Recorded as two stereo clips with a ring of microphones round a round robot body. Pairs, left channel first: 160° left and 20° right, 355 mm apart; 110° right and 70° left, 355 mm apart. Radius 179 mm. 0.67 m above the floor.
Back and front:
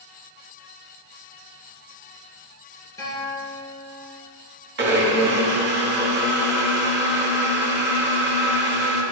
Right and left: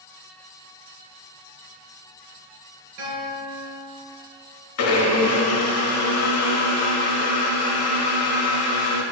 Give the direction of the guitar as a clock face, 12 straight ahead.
9 o'clock.